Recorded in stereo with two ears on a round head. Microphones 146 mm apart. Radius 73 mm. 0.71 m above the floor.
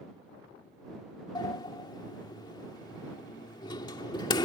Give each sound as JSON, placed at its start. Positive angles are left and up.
{"t": 1.4, "sound": "a sliding door", "side_deg": 25}